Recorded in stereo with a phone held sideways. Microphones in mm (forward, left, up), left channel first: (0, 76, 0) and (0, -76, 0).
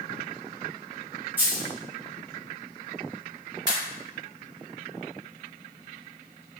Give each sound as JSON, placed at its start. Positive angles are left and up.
{"t": 1.4, "sound": "a dropped coin", "side_deg": -10, "distance_m": 0.7}
{"t": 3.7, "sound": "a pop", "side_deg": -25, "distance_m": 1.6}